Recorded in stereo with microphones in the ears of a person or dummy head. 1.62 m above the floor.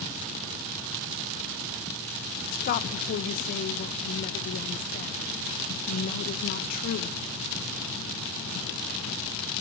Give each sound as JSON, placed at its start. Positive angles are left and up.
{"t": 2.5, "sound": "a woman speaking", "side_deg": 40, "distance_m": 1.6}